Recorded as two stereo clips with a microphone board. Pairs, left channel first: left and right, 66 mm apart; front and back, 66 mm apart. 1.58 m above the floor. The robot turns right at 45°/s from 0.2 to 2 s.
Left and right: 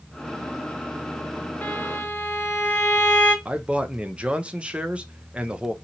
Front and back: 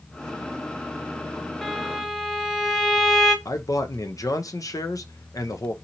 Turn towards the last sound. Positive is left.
turn(degrees=-20)